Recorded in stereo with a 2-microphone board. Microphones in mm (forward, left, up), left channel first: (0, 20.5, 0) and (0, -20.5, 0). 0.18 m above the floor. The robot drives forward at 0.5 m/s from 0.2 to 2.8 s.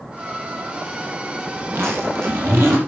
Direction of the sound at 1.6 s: 75° right (ahead or behind).